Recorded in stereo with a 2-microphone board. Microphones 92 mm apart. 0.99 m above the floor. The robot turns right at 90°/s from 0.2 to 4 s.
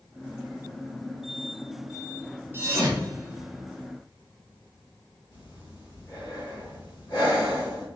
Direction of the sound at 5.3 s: 50° left (ahead or behind).